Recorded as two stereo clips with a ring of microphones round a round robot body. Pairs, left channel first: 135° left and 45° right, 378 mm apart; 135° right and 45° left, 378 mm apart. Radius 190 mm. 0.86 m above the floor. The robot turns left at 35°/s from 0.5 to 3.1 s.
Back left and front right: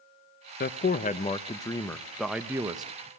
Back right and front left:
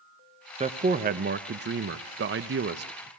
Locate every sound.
0.6 s a man speaking: 100° left, 0.8 m; by 3.1 s 15° left, 0.8 m